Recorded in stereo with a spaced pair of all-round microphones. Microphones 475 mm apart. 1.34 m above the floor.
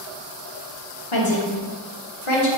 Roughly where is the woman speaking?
Left.